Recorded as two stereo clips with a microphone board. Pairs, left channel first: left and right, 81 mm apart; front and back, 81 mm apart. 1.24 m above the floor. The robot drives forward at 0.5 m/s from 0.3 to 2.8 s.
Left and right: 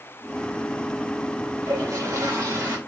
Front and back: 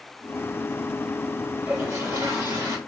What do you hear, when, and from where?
1.6 s a toilet flushing: 135° right, 1.9 m; by 2.8 s 145° right, 2.5 m